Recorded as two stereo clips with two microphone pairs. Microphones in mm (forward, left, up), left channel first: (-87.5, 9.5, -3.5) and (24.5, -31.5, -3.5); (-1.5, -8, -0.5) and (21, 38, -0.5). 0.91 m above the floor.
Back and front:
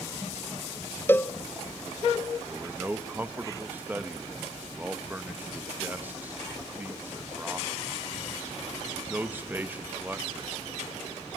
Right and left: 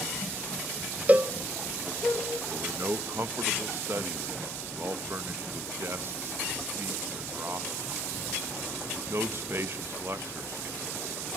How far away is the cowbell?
About 0.8 m.